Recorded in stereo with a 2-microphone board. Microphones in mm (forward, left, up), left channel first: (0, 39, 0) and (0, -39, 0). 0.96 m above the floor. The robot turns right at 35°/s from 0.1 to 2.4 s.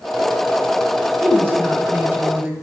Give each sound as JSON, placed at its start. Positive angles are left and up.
{"t": 1.2, "sound": "a woman speaking", "side_deg": -25, "distance_m": 0.9}